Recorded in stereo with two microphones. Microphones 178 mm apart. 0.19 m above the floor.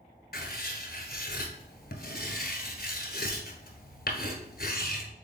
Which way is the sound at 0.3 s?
65° left (ahead or behind).